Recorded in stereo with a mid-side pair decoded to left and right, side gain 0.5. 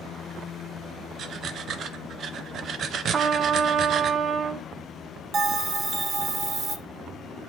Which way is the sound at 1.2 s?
60° right.